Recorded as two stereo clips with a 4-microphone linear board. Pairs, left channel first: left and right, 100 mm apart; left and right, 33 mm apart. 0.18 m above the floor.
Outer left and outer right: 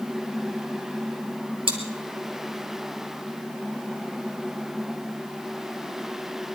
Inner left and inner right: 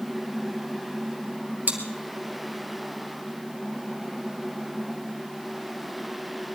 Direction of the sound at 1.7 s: 60° right (ahead or behind).